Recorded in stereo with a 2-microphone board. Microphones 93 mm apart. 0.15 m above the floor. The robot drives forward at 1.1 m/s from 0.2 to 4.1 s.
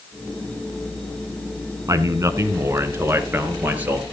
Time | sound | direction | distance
1.9 | a man speaking | 35° right (ahead or behind) | 1.5 m